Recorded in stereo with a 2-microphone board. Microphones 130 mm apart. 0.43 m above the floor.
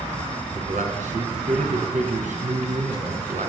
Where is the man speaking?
80° right, 4 m.